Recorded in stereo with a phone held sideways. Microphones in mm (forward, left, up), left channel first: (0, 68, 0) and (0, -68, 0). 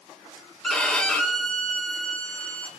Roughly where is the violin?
Centre.